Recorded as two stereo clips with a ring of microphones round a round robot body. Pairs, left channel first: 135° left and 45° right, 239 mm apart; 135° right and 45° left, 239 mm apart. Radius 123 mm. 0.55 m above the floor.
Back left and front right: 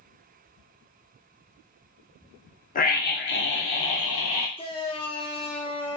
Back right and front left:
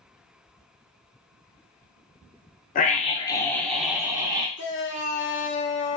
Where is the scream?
Straight behind, 0.8 m; by 4.5 s 115° left, 1.1 m.